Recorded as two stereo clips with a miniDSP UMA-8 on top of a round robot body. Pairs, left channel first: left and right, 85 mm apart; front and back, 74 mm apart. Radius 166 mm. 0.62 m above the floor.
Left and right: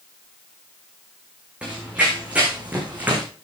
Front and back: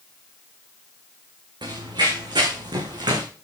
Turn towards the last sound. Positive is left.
turn(degrees=-160)